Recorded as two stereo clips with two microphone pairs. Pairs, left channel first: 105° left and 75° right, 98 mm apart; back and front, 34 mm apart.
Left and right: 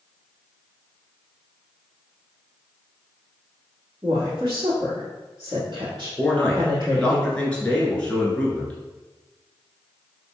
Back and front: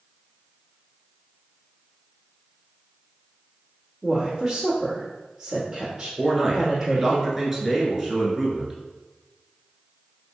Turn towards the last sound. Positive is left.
turn(degrees=55)